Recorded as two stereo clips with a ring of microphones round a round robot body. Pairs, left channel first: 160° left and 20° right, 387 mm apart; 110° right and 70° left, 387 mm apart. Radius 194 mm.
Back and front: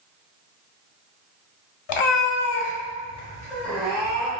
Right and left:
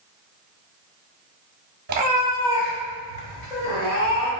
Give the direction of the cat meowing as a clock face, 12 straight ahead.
8 o'clock.